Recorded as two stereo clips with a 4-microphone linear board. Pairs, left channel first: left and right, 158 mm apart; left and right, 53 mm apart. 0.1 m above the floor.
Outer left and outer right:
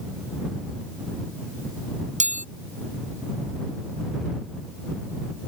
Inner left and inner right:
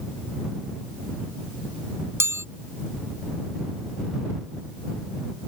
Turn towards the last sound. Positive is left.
turn(degrees=-50)  # may be behind; listen again after turning